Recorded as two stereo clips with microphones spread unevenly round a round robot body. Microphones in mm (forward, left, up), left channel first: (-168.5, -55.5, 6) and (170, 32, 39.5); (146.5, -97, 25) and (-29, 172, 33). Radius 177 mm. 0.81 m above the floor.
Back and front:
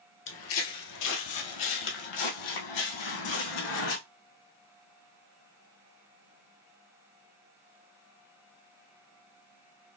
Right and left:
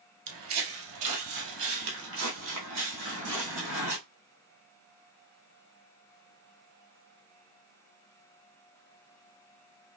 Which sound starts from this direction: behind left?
Footsteps, at 0.3 s.